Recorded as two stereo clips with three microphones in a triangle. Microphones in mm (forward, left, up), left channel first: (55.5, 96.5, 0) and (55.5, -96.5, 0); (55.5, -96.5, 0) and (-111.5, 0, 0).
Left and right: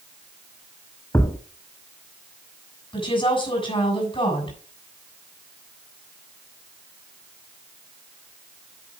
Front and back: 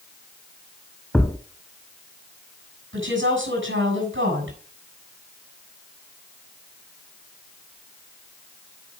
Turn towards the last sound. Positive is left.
turn(degrees=155)